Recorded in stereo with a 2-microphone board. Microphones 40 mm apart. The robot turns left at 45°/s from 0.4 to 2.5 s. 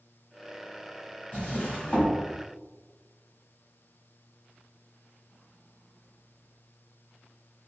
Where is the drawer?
45° left (ahead or behind), 1.0 m; by 2.1 s 25° left (ahead or behind), 1.0 m.